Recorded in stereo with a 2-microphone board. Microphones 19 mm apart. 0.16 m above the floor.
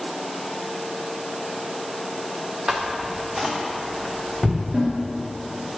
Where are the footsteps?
25° right (ahead or behind), 1.3 m; by 4.6 s 15° right (ahead or behind), 2.5 m.